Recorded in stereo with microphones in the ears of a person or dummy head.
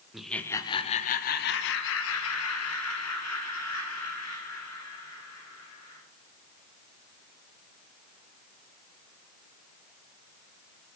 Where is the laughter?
5° right (ahead or behind), 0.7 m; by 6.0 s 80° left, 3 m.